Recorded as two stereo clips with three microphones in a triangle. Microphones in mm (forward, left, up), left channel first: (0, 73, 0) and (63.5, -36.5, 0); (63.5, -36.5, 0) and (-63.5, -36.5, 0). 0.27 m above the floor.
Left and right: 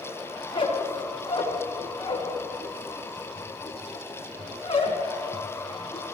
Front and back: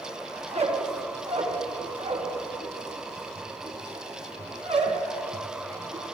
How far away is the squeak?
About 1.7 m.